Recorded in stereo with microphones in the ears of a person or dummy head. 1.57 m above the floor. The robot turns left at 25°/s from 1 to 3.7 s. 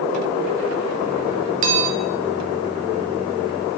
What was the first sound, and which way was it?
A bell, 40° right (ahead or behind).